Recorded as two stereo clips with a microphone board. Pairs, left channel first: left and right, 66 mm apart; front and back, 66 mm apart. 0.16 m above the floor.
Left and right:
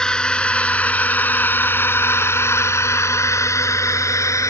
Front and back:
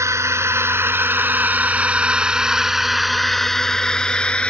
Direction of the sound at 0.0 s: 165° left.